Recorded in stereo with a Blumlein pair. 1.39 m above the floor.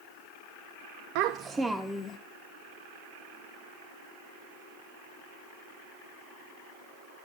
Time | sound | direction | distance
1.1 | a child speaking | 45° right | 0.7 m